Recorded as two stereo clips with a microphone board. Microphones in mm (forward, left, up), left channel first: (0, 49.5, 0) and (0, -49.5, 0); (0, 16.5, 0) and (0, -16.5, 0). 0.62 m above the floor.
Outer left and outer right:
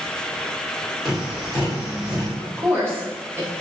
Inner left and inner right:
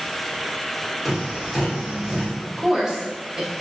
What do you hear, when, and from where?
1.1 s tapping: 5° right (ahead or behind), 1.3 m
2.4 s a woman speaking: 20° right (ahead or behind), 0.8 m